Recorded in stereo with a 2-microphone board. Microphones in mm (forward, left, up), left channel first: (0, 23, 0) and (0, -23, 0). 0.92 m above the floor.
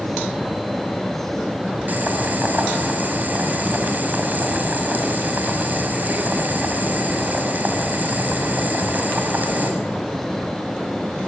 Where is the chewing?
I don't hear chewing.